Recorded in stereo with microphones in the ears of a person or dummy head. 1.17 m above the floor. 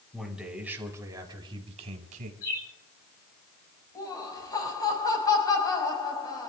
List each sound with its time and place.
0.1 s a man speaking: centre (ahead or behind), 4 m; by 2.3 s 50° right (ahead or behind), 4 m
2.4 s a bird: 50° left (ahead or behind), 8 m
4.0 s laughter: 20° left (ahead or behind), 5.5 m